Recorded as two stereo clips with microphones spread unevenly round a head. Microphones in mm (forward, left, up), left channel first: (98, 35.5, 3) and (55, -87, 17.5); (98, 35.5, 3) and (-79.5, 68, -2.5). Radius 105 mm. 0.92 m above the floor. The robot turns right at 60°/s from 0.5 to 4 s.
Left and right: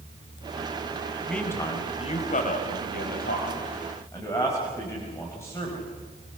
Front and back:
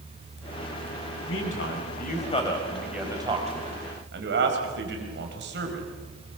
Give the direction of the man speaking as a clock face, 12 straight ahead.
12 o'clock.